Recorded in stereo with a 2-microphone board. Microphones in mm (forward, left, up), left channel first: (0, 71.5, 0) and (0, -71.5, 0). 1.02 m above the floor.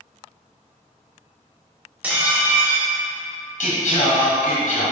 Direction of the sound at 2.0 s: 10° right (ahead or behind).